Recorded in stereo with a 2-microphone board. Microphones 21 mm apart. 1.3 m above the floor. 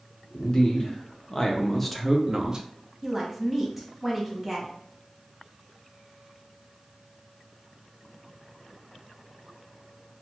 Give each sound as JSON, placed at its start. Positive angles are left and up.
{"t": 0.3, "sound": "a man speaking", "side_deg": 40, "distance_m": 1.2}
{"t": 3.0, "sound": "a woman speaking", "side_deg": -10, "distance_m": 1.0}